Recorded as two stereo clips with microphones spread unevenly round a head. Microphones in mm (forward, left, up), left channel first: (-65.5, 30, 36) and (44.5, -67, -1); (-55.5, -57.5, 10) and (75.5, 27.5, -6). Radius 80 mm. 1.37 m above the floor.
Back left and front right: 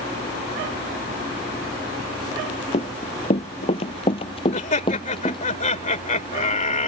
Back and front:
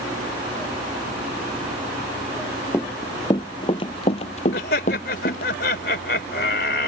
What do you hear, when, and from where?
2.7 s running footsteps: 145° left; by 5.5 s 175° right
4.5 s laughter: straight behind